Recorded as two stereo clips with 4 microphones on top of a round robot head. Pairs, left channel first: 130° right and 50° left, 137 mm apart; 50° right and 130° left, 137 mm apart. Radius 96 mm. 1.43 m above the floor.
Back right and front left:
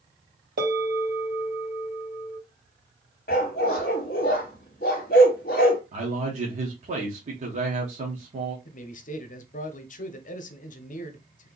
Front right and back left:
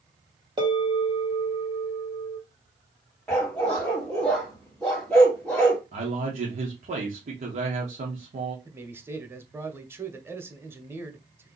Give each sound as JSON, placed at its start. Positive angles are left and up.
{"t": 0.6, "sound": "a bell", "azimuth_deg": 70, "distance_m": 2.0}
{"t": 3.3, "sound": "a dog barking", "azimuth_deg": -135, "distance_m": 1.0}
{"t": 5.9, "sound": "a man speaking", "azimuth_deg": 90, "distance_m": 1.1}
{"t": 8.7, "sound": "a man speaking", "azimuth_deg": -160, "distance_m": 0.8}